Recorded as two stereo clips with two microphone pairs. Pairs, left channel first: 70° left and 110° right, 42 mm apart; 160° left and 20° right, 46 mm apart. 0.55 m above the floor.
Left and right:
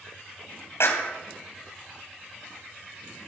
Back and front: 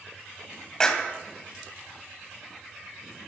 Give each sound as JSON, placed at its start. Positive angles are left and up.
{"t": 0.8, "sound": "a clap", "azimuth_deg": 85, "distance_m": 2.5}